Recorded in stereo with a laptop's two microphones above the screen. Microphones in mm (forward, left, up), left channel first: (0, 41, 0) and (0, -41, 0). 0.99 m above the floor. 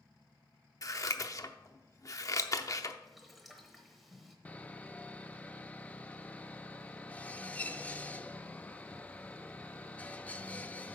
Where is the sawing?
15° left (ahead or behind), 0.5 m.